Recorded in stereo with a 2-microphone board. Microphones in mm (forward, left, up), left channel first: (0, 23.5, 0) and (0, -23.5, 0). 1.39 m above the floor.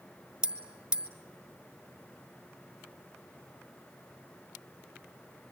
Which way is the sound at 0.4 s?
20° right (ahead or behind).